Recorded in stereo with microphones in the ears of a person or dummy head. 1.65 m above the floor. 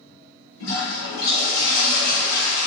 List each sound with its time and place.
0.6 s a toilet flushing: 80° left, 1.8 m